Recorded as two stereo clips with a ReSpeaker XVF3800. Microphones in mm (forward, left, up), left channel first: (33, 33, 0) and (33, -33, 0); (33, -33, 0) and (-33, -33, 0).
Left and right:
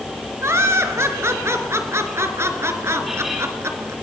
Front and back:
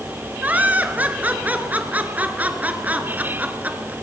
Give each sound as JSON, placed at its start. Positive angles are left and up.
{"t": 0.4, "sound": "laughter", "azimuth_deg": -120, "distance_m": 2.5}